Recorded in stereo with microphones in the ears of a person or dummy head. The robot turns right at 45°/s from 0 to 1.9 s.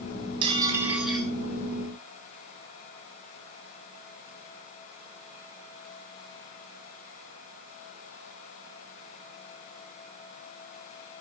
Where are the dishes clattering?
30° right, 3.5 m; by 1.3 s 10° left, 3.5 m.